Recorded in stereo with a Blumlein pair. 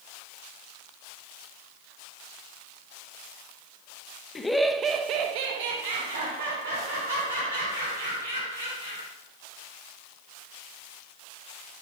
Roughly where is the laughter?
Ahead.